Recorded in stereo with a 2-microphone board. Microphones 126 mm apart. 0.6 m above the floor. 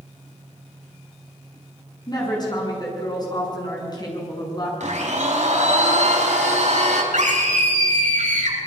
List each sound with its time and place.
2.1 s a woman speaking: 35° left (ahead or behind), 7.5 m
4.8 s a blender: 70° right (ahead or behind), 4.5 m
7.1 s a scream: 75° right (ahead or behind), 8 m